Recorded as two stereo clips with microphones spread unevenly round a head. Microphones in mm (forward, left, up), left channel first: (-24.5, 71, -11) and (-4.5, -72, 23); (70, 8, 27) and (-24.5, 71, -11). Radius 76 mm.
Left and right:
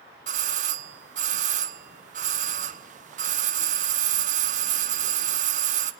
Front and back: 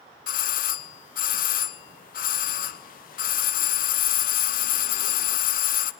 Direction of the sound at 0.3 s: 35° right.